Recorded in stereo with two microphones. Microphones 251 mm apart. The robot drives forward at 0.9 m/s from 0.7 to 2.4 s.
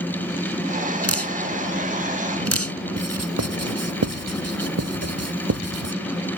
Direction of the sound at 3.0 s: 80° right.